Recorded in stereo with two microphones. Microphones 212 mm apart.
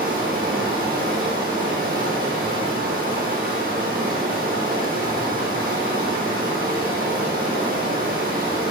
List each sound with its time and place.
0.0 s running water: 45° right (ahead or behind), 1.0 m